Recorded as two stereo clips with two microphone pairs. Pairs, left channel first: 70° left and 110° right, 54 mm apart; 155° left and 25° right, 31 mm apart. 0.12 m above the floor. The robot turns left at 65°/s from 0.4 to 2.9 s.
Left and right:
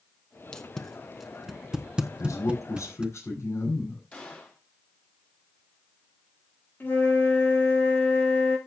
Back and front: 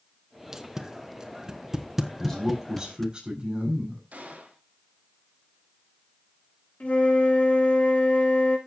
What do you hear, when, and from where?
0.5 s tape being pulled: 15° left, 1.2 m; by 3.1 s 140° right, 1.2 m
2.2 s a man speaking: 80° left, 8 m; by 4.0 s 35° left, 8 m
4.1 s a gunshot: straight ahead, 3.5 m
6.8 s a flute: 120° left, 5 m